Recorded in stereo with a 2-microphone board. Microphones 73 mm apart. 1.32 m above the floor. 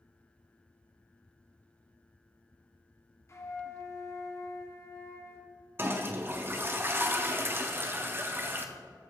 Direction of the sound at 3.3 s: 40° left (ahead or behind).